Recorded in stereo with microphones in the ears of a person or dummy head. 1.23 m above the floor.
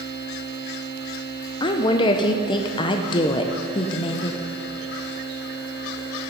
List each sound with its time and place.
1.6 s a woman speaking: 25° left (ahead or behind), 0.6 m